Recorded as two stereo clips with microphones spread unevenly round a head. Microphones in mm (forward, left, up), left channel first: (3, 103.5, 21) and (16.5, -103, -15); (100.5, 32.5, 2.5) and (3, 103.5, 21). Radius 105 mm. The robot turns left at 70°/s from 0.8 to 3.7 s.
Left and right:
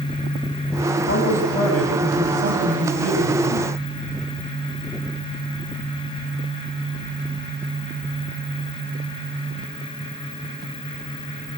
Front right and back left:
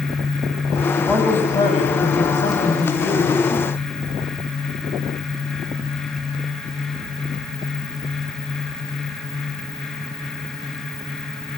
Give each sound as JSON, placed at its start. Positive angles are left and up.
{"t": 1.1, "sound": "a man speaking", "azimuth_deg": 60, "distance_m": 6.5}